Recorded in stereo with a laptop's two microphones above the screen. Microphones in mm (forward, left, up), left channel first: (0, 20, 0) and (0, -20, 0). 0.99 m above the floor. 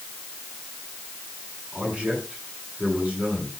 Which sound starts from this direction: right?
A man speaking, at 1.7 s.